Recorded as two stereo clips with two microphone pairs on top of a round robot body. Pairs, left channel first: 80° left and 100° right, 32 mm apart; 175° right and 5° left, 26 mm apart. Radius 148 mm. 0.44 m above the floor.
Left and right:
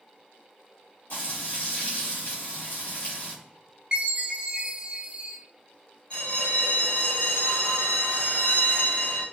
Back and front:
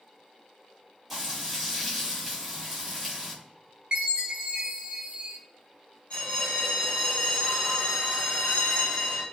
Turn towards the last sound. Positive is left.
turn(degrees=130)